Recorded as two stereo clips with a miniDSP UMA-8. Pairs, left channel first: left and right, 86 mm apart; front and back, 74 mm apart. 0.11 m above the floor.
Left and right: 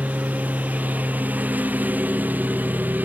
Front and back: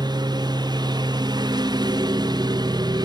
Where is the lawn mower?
160° right.